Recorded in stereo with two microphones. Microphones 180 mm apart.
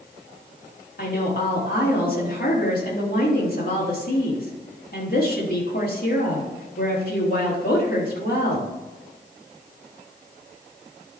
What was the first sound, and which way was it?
A woman speaking, 55° left (ahead or behind).